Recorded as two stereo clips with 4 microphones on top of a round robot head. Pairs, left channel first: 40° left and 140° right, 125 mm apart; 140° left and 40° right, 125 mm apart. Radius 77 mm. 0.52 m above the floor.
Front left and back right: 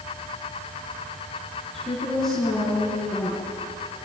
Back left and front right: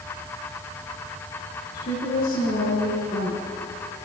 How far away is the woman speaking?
About 7.5 m.